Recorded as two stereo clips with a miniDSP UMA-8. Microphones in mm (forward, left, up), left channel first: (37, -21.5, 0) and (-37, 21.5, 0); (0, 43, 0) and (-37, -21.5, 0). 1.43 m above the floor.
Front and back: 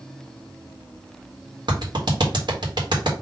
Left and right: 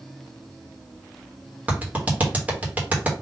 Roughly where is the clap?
Behind.